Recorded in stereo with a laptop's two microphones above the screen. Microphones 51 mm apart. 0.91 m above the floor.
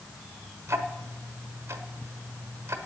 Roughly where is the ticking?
Right.